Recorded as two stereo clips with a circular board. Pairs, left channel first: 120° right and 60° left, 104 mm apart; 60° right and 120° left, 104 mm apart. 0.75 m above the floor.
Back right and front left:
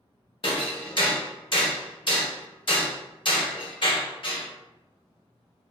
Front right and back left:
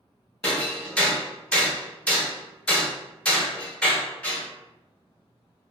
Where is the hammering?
135° right, 0.7 m.